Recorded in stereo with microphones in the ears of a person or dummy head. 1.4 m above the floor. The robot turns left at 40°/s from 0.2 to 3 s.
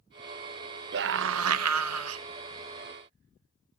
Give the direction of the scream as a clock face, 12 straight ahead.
2 o'clock.